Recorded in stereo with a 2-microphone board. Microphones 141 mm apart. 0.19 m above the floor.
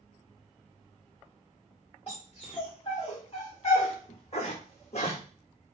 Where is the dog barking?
40° left (ahead or behind), 4 m; by 5.2 s 55° left (ahead or behind), 2.5 m.